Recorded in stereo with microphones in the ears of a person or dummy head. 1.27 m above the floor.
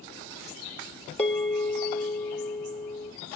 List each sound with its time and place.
1.2 s a bell: 10° left (ahead or behind), 1.0 m